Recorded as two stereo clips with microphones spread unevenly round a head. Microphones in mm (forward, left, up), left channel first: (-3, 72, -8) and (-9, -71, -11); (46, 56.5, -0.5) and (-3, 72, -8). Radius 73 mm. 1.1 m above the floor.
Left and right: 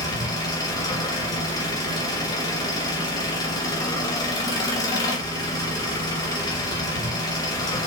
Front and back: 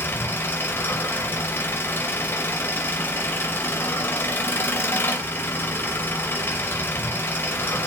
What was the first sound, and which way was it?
An engine running, 25° left.